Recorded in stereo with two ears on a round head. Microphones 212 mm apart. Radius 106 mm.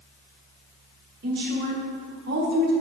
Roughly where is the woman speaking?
Right.